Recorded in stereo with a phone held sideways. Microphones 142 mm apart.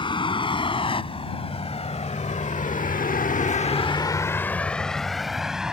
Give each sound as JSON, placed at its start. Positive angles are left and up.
{"t": 0.0, "sound": "a vehicle", "side_deg": 35}